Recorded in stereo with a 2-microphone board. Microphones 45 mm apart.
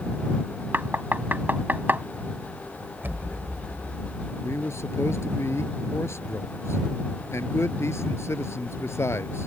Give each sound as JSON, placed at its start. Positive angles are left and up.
{"t": 0.7, "sound": "knocking", "side_deg": -45}
{"t": 3.0, "sound": "an explosion", "side_deg": -50}
{"t": 4.4, "sound": "a man speaking", "side_deg": 75}